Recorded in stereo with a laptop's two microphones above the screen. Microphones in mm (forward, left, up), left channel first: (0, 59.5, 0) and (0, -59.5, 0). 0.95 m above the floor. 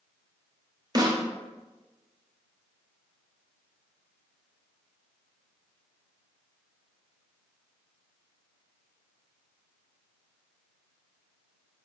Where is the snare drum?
35° right (ahead or behind), 0.5 m.